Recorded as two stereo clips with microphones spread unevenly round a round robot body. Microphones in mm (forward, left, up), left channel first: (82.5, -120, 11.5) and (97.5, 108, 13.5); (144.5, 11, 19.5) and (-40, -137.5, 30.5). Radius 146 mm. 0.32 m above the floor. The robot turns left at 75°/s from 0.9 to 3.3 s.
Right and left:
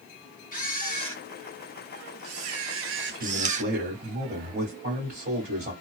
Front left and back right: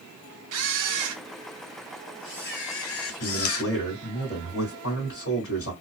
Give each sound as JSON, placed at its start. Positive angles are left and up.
{"t": 0.5, "sound": "a camera shutter", "azimuth_deg": -155, "distance_m": 0.5}
{"t": 3.1, "sound": "a man speaking", "azimuth_deg": 70, "distance_m": 1.7}